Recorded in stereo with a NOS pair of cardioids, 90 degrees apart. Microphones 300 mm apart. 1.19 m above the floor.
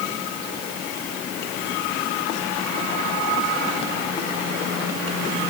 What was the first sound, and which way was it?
Only background noise.